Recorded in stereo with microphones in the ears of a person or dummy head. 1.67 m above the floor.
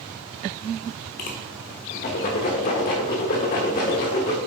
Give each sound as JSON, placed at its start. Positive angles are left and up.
{"t": 1.2, "sound": "a whoosh", "side_deg": 40, "distance_m": 1.1}